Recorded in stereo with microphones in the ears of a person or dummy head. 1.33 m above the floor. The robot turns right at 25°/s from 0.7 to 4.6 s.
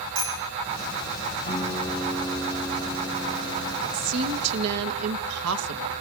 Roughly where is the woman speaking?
Right.